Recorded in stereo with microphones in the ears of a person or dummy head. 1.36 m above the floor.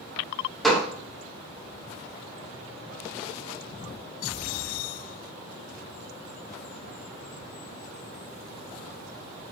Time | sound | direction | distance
0.6 | a gunshot | 5° left (ahead or behind) | 0.5 m